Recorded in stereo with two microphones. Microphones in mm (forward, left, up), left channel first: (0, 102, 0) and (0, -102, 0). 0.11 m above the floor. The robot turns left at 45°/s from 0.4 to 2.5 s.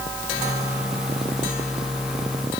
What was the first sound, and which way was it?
Only background noise.